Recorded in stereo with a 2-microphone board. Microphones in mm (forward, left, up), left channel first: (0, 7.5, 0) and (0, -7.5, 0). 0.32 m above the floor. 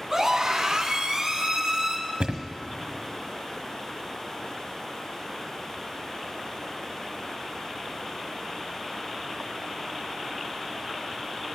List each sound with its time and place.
0.1 s a scream: 25° right (ahead or behind), 3 m; by 2.0 s 45° right (ahead or behind), 4 m
2.2 s a thud: 70° right (ahead or behind), 1.3 m